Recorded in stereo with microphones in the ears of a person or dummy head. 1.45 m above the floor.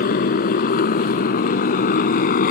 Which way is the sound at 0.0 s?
50° left (ahead or behind).